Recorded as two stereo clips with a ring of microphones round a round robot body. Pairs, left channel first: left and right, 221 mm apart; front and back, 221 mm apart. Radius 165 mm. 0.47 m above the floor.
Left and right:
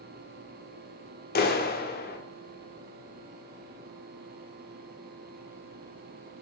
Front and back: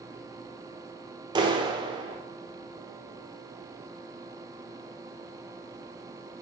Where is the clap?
115° left, 1.4 m.